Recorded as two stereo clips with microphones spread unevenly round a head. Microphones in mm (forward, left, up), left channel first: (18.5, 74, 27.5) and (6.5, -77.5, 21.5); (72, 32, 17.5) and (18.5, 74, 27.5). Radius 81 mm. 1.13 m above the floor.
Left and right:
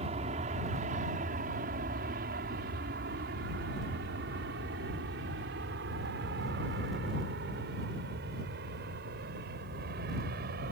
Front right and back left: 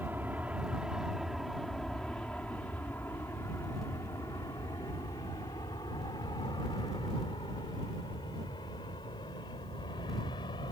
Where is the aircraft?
140° right; by 10.7 s 70° right.